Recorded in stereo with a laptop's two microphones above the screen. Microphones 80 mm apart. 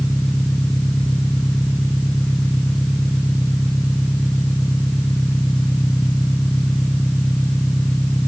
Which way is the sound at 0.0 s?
15° left (ahead or behind).